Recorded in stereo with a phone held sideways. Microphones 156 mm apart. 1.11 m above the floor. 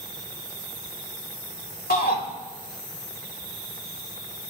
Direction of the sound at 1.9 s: 80° left.